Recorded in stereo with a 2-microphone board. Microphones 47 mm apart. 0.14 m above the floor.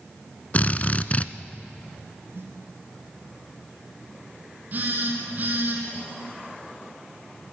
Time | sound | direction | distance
0.5 | a drill | 35° left (ahead or behind) | 0.8 m
2.3 | a snare drum | 60° right (ahead or behind) | 4 m
4.7 | a phone buzzing | 40° right (ahead or behind) | 5 m